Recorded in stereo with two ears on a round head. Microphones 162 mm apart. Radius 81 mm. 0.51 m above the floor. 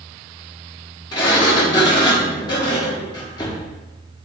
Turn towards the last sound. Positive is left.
turn(degrees=25)  # may be behind; listen again after turning